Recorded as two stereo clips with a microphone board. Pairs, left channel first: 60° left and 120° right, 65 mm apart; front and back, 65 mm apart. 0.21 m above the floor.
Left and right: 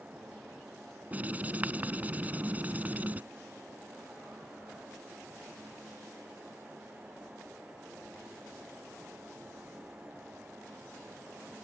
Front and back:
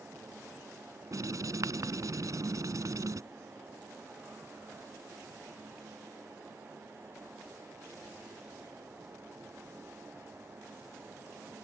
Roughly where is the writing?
Behind.